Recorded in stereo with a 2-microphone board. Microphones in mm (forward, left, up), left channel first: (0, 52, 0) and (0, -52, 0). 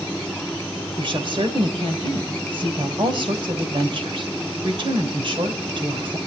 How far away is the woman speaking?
About 2.5 m.